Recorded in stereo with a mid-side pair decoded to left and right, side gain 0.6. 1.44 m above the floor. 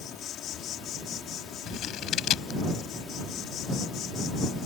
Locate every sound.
0.0 s an insect: 60° left
1.7 s scissors: 60° left